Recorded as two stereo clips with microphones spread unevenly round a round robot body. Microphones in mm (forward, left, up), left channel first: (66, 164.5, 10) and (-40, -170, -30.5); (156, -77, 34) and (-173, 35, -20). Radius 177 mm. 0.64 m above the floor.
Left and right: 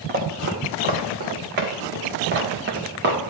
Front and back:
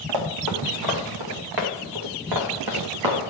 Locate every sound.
0.1 s running footsteps: 175° right, 2.5 m; by 3.3 s 170° right, 4.5 m